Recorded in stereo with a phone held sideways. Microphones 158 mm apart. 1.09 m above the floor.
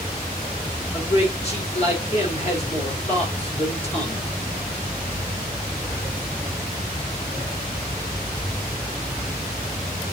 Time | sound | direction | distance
0.9 | a man speaking | 45° left (ahead or behind) | 4 m